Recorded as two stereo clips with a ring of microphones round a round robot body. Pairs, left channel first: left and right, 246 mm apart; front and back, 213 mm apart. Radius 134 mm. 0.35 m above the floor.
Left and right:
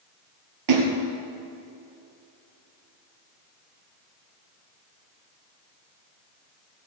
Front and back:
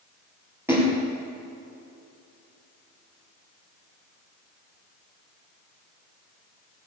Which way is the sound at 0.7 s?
100° right.